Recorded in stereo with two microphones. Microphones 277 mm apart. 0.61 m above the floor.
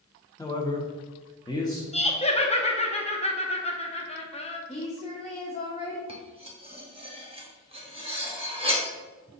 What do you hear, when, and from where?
0.4 s a man speaking: 10° left (ahead or behind), 0.8 m
1.9 s laughter: 20° left (ahead or behind), 0.6 m
4.7 s a woman speaking: 20° left (ahead or behind), 0.9 m
6.1 s cutlery clinking: 20° right (ahead or behind), 0.8 m